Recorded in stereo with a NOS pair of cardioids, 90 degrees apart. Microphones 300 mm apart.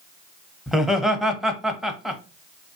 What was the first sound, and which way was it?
Laughter, straight ahead.